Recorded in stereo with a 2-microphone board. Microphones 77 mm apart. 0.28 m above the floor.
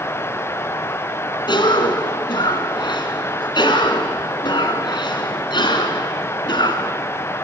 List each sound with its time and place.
1.5 s a cough: 65° left (ahead or behind), 3.5 m